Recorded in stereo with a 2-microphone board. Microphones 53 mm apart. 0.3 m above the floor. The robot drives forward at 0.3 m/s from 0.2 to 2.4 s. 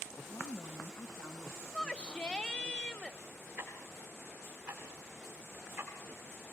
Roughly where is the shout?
Centre.